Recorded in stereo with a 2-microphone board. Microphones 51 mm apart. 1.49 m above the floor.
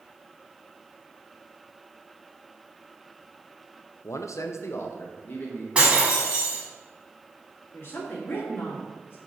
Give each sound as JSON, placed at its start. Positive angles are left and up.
{"t": 4.0, "sound": "a man speaking", "side_deg": 60, "distance_m": 0.5}
{"t": 5.8, "sound": "breaking glass", "side_deg": -20, "distance_m": 2.0}
{"t": 7.7, "sound": "a woman speaking", "side_deg": 45, "distance_m": 2.5}